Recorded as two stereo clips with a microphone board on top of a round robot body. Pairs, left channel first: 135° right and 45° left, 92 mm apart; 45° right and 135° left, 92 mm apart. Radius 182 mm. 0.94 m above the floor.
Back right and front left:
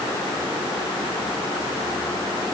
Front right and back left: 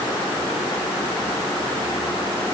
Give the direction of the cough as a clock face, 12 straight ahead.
No cough in this recording.